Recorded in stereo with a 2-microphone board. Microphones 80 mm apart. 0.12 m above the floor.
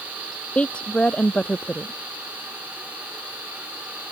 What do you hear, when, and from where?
0.6 s a woman speaking: 15° left (ahead or behind)